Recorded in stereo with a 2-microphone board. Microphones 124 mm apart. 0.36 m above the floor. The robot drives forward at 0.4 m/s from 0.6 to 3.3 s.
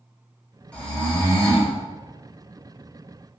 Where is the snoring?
10° left (ahead or behind), 0.9 m; by 1.7 s 5° left (ahead or behind), 1.2 m.